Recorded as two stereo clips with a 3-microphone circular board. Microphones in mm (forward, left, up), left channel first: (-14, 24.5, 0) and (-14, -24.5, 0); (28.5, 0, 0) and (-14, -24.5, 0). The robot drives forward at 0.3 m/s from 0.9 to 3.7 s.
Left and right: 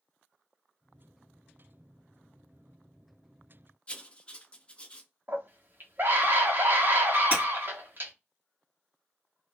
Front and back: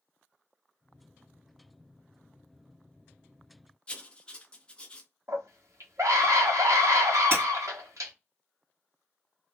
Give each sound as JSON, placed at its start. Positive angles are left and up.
{"t": 3.9, "sound": "writing", "azimuth_deg": 70, "distance_m": 0.5}
{"t": 5.3, "sound": "a scream", "azimuth_deg": -135, "distance_m": 1.0}
{"t": 7.3, "sound": "breaking glass", "azimuth_deg": -140, "distance_m": 1.9}